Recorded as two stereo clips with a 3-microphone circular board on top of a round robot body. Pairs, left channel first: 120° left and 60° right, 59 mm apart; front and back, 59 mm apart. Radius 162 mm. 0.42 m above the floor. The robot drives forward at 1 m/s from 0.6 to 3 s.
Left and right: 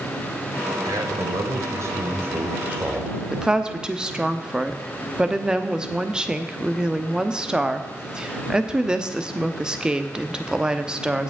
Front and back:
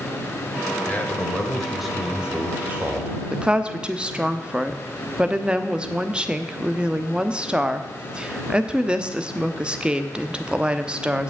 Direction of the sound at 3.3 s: 120° right.